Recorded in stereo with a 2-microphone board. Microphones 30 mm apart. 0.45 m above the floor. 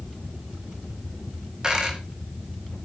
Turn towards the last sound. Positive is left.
turn(degrees=-25)  # may be behind; listen again after turning